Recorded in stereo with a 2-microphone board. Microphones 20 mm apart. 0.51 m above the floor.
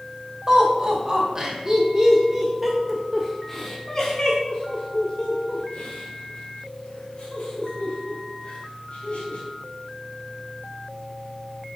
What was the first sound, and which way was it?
Laughter, 35° right (ahead or behind).